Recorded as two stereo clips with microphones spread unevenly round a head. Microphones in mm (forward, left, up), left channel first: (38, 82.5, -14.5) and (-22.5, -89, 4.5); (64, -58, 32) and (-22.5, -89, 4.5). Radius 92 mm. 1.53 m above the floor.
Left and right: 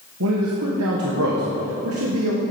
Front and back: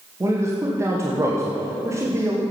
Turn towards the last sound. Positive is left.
turn(degrees=-105)